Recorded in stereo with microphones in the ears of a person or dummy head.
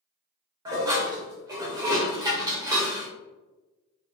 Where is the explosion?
I don't hear an explosion.